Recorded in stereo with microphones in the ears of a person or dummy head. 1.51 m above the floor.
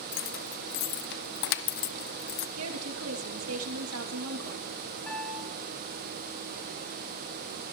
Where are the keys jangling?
65° left (ahead or behind), 0.9 m.